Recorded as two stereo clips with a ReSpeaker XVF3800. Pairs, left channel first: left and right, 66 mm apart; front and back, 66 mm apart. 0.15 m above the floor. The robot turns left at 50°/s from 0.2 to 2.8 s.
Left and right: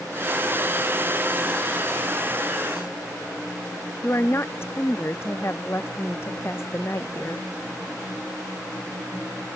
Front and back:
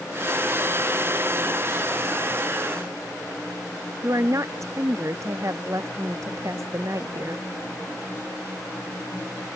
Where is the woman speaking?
140° left.